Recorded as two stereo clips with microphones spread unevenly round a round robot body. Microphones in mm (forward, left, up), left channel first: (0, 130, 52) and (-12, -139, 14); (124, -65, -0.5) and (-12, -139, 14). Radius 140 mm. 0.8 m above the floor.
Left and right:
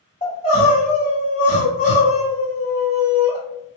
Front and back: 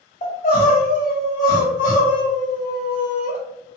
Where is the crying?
10° left, 1.8 m.